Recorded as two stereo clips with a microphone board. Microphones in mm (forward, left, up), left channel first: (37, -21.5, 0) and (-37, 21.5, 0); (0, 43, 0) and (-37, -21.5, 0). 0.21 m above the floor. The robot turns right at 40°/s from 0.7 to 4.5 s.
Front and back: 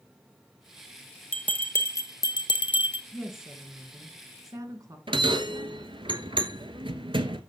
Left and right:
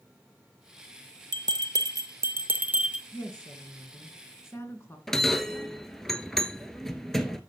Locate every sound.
1.3 s a bell: 105° right, 0.9 m; by 3.0 s 40° right, 0.9 m
3.1 s a woman speaking: 55° left, 2.0 m; by 5.0 s 110° left, 2.0 m
5.1 s a bell: 145° left, 1.0 m